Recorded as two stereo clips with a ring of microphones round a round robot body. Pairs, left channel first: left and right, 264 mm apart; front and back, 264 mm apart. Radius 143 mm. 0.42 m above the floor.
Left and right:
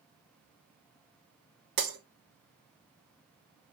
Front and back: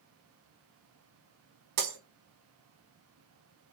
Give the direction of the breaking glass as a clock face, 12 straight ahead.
5 o'clock.